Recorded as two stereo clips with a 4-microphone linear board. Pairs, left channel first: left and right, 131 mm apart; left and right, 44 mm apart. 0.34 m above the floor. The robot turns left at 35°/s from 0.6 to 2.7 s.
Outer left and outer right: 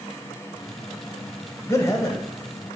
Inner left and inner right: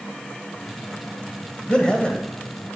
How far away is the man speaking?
About 1.8 m.